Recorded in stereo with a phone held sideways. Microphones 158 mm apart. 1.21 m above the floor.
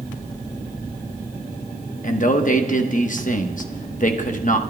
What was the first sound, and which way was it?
A man speaking, 55° left (ahead or behind).